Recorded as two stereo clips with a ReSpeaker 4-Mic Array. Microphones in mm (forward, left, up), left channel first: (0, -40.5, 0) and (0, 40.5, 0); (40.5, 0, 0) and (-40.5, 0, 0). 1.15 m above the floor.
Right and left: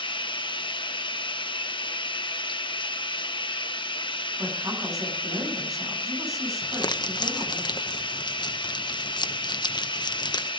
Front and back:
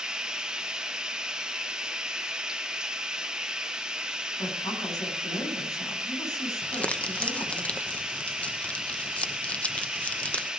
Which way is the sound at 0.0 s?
100° right.